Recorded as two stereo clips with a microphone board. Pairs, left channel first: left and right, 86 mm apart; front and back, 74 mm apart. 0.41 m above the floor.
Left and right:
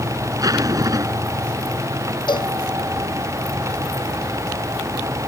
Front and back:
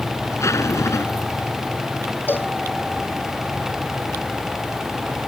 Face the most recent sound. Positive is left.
turn(degrees=65)